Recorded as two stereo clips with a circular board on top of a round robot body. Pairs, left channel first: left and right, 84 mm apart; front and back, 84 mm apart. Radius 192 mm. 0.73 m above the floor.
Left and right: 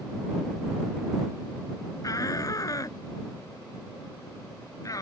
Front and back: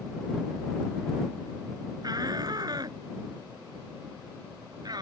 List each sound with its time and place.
2.0 s a shout: 140° left